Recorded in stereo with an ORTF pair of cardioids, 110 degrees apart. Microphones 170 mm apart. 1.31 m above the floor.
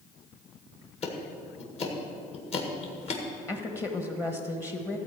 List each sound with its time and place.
1.0 s ticking: 40° left, 1.9 m
3.5 s a woman speaking: 20° left, 1.2 m